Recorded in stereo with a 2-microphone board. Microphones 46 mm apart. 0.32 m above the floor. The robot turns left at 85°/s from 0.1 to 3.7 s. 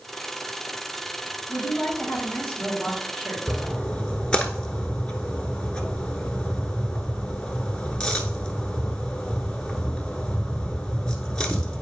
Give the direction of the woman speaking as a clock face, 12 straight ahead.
9 o'clock.